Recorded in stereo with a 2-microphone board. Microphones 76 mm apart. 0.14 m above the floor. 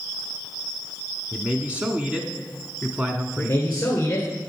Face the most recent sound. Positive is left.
turn(degrees=30)  # may be behind; listen again after turning